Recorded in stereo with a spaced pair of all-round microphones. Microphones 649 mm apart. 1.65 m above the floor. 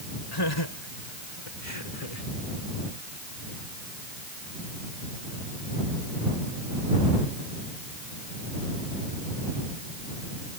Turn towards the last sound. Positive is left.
turn(degrees=65)  # may be behind; listen again after turning